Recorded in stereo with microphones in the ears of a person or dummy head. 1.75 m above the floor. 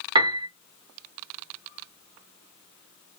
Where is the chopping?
I don't hear chopping.